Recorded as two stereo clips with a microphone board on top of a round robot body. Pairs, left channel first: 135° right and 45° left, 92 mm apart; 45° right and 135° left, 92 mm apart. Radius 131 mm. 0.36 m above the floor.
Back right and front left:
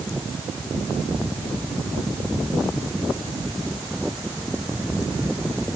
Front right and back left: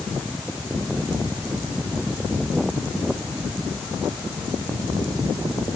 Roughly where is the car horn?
I don't hear a car horn.